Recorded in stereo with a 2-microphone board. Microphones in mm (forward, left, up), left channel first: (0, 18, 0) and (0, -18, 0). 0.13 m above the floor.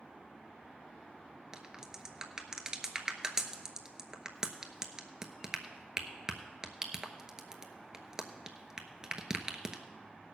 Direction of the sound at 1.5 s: 15° right (ahead or behind).